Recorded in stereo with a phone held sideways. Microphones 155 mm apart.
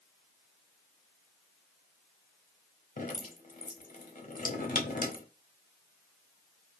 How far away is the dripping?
About 0.7 m.